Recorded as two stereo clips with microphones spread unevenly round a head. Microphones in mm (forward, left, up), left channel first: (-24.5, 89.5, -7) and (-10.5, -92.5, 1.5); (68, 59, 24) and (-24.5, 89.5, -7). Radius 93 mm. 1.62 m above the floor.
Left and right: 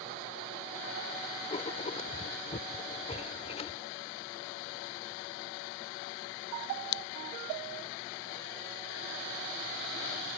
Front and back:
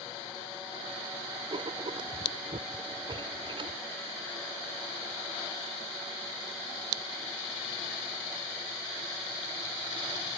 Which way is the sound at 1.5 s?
135° left.